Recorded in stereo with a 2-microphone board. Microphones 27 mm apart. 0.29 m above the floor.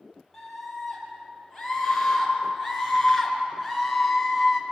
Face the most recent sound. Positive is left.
turn(degrees=0)  # may be behind; listen again after turning